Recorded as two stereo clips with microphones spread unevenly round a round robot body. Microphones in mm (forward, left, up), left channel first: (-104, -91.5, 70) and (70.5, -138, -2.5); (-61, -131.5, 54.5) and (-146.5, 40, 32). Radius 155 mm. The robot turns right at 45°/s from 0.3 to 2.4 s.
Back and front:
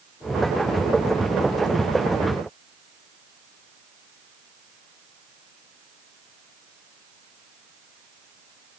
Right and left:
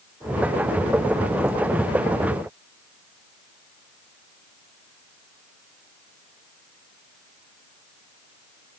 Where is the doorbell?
I don't hear a doorbell.